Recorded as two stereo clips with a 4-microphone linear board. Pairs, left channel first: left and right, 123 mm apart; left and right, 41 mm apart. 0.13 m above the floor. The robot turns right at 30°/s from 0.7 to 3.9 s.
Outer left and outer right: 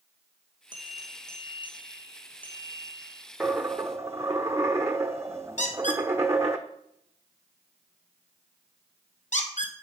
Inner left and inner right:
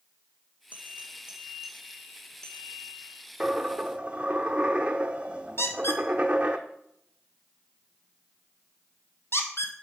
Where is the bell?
40° right, 1.9 m; by 3.2 s 35° left, 1.9 m.